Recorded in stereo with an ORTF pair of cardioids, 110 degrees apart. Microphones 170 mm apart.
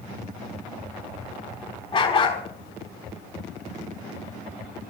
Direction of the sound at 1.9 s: 30° left.